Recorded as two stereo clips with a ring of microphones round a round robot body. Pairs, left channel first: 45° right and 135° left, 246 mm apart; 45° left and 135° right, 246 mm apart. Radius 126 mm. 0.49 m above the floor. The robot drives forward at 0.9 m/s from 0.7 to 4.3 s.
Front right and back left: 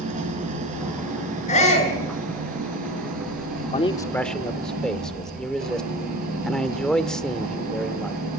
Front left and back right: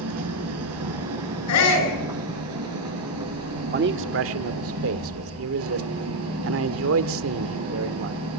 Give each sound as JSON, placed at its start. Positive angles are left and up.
{"t": 0.0, "sound": "an engine running", "azimuth_deg": -165, "distance_m": 6.5}
{"t": 1.5, "sound": "a shout", "azimuth_deg": 20, "distance_m": 8.5}
{"t": 3.6, "sound": "a man speaking", "azimuth_deg": -95, "distance_m": 1.0}